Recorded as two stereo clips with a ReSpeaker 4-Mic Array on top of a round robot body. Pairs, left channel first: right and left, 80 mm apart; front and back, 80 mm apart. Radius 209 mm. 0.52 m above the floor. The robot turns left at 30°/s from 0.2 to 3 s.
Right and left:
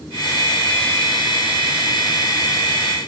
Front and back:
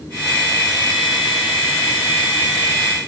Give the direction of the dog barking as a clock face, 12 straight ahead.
I don't hear a dog barking.